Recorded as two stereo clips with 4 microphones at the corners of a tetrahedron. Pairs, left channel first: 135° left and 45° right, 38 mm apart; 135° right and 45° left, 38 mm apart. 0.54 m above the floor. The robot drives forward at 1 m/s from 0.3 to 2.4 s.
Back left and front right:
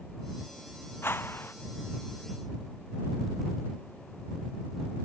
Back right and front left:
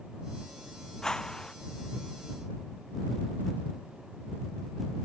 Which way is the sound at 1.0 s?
150° left.